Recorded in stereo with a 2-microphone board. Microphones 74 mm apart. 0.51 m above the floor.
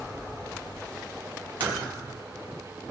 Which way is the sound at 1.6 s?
85° right.